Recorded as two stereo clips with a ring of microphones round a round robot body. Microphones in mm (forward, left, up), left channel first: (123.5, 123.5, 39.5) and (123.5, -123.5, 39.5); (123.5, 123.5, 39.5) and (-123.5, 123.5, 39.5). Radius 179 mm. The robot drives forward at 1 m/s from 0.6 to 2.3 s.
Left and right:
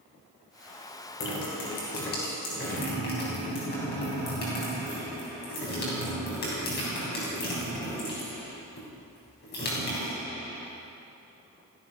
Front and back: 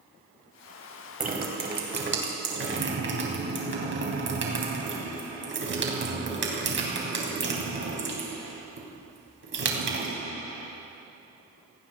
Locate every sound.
1.2 s dripping: 130° left, 2.5 m; by 10.1 s 145° left, 3.5 m